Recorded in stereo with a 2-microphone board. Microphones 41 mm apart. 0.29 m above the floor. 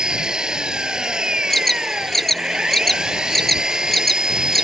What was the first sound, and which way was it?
An engine running, 20° right (ahead or behind).